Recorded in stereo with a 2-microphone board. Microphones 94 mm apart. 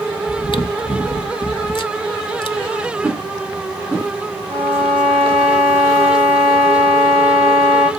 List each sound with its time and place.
0.3 s chewing: 55° left (ahead or behind), 0.6 m
3.0 s a whoosh: centre (ahead or behind), 4 m
4.5 s a violin: 35° right (ahead or behind), 6 m